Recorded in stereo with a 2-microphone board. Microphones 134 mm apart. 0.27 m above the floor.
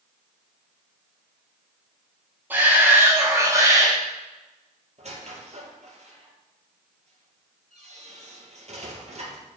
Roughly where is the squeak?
Right.